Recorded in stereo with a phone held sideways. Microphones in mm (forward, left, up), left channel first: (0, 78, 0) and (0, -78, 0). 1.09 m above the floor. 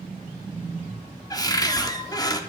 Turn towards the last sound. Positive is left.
turn(degrees=25)  # may be behind; listen again after turning